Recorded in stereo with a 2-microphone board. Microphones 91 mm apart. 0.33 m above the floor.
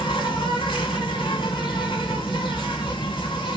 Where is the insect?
65° left (ahead or behind), 1.5 m.